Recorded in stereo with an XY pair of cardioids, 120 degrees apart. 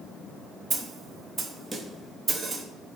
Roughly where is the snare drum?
Ahead right.